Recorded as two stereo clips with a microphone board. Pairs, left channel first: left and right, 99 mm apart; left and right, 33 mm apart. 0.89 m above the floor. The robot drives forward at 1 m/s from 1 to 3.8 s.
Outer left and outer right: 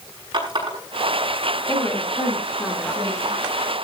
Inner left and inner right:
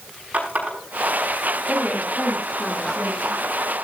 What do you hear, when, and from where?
0.3 s a running tap: 50° right (ahead or behind), 5.5 m
1.7 s a woman speaking: 20° left (ahead or behind), 7 m; by 3.4 s 15° left (ahead or behind), 8.5 m